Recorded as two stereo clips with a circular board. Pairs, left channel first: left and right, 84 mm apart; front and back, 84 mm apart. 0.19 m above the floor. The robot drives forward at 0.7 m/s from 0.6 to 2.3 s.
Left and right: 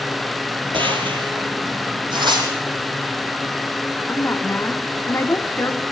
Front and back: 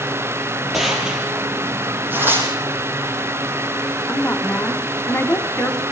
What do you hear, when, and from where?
0.7 s a gunshot: 90° right, 4.5 m; by 1.5 s 100° right, 4.5 m
2.1 s tearing paper: 115° right, 5 m
4.1 s a woman speaking: 50° left, 1.2 m